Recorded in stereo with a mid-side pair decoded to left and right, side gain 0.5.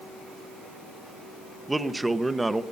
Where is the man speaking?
15° right, 0.8 m.